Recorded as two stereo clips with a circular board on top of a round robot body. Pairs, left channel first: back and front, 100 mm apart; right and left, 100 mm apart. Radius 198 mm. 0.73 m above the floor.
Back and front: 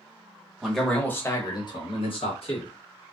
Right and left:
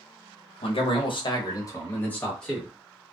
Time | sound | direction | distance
0.6 | a man speaking | 85° right | 1.1 m